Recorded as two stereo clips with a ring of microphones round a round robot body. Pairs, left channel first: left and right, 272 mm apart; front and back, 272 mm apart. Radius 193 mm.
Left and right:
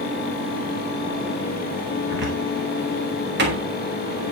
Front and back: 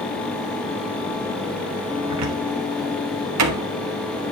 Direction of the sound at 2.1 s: 150° right.